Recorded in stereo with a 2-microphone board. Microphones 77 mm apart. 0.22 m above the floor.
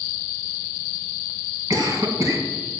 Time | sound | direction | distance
1.7 | a cough | 45° right (ahead or behind) | 2 m